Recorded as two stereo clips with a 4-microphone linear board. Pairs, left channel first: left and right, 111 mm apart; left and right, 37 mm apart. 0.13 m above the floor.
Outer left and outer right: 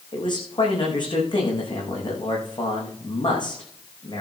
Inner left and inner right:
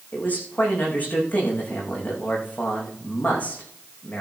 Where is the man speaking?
45° left (ahead or behind), 7.5 m.